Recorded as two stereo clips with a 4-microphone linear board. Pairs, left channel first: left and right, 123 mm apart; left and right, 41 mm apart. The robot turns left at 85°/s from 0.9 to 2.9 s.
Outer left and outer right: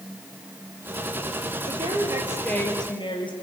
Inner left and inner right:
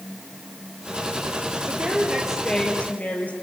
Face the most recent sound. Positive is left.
turn(degrees=135)